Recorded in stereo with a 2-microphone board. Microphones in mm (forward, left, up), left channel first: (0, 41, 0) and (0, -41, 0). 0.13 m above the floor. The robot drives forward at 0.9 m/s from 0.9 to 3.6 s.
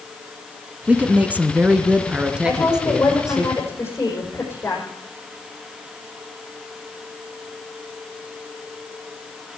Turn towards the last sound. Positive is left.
turn(degrees=30)  # may be behind; listen again after turning